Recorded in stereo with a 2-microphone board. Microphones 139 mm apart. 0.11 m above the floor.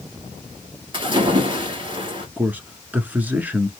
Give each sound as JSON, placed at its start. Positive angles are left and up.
{"t": 0.9, "sound": "a splash", "side_deg": -40, "distance_m": 2.0}
{"t": 2.4, "sound": "a man speaking", "side_deg": -10, "distance_m": 1.2}